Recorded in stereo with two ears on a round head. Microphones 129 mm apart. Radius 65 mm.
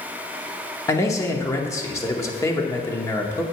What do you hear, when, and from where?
0.9 s a man speaking: 20° left (ahead or behind), 0.9 m